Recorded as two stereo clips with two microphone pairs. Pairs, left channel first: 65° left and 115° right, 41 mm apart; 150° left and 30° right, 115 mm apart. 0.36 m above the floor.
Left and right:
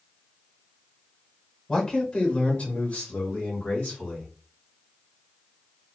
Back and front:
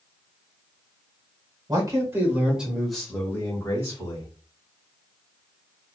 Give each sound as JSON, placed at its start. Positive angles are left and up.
{"t": 1.7, "sound": "a man speaking", "azimuth_deg": 0, "distance_m": 1.1}